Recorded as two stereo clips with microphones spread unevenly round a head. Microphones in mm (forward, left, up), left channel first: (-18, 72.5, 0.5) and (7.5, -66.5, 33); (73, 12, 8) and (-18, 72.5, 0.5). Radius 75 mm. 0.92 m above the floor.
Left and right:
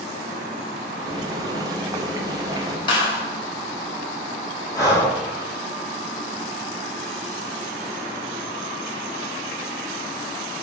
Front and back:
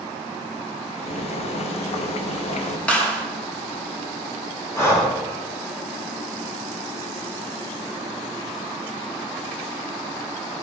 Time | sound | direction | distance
1.0 | boiling | 15° right | 0.6 m
2.9 | a clap | 45° left | 1.5 m
4.7 | breathing | 30° left | 2.5 m